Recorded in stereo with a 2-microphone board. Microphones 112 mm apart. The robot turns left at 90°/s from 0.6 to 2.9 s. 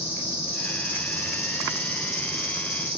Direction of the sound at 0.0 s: 160° left.